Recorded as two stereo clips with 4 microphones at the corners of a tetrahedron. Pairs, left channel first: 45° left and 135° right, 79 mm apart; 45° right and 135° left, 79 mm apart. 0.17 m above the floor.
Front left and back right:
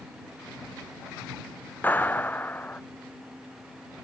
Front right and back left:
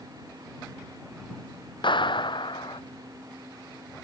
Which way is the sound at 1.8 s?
25° right.